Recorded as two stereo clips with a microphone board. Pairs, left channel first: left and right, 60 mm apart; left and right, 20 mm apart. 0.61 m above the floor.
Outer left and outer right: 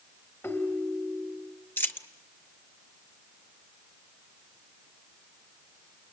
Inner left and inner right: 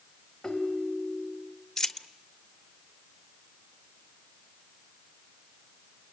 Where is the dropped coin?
35° left (ahead or behind), 1.0 m.